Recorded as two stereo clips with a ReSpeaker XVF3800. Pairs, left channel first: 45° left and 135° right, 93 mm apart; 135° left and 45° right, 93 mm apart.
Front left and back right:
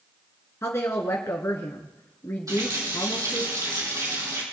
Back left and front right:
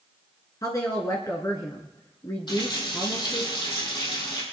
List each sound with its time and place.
0.6 s a woman speaking: 100° left, 1.9 m
2.5 s a running tap: 170° left, 4 m